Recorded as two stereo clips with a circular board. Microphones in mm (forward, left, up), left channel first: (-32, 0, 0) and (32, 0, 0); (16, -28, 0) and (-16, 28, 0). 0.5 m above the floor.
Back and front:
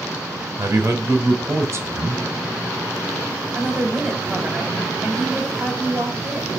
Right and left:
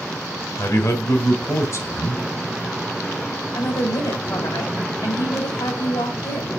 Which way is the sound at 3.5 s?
80° right.